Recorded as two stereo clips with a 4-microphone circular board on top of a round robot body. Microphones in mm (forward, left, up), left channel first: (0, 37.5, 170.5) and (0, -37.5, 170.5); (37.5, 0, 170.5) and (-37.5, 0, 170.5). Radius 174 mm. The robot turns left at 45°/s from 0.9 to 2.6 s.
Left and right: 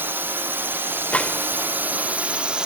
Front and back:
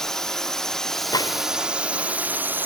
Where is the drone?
80° right; by 2.7 s 155° right.